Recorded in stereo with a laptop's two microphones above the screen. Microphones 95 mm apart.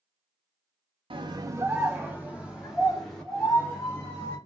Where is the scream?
60° right (ahead or behind), 0.7 m; by 4.4 s 40° left (ahead or behind), 3 m.